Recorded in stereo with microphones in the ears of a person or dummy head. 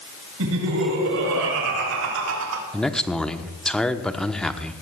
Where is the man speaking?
5° left (ahead or behind), 1.1 m.